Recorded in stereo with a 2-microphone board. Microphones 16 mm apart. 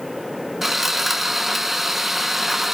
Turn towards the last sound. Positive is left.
turn(degrees=-10)  # may be behind; listen again after turning